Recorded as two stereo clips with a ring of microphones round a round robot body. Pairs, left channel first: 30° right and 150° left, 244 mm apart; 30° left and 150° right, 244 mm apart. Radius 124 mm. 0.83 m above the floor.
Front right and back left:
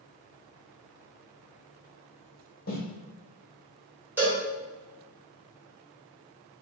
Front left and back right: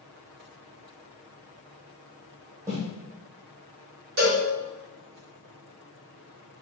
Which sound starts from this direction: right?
Footsteps, at 2.7 s.